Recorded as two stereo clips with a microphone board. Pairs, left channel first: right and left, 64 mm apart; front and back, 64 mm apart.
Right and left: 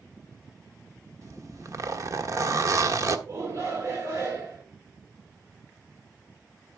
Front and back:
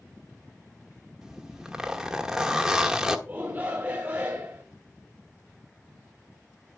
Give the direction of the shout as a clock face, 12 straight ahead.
8 o'clock.